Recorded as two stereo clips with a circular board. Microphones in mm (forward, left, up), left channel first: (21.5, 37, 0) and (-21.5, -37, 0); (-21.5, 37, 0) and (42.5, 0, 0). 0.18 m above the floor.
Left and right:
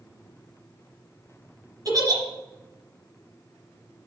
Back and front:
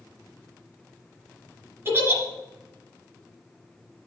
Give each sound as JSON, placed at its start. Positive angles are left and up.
{"t": 1.9, "sound": "a giggle", "azimuth_deg": -80, "distance_m": 2.0}